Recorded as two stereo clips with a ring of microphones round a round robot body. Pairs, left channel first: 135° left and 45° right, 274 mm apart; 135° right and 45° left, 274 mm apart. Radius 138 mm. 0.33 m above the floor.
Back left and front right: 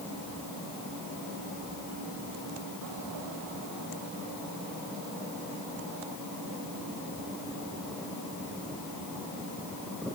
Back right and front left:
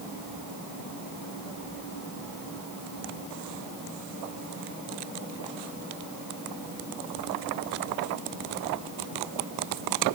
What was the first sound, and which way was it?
Only background noise.